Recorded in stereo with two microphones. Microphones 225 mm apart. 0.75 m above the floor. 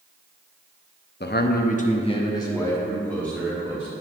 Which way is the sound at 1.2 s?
45° left (ahead or behind).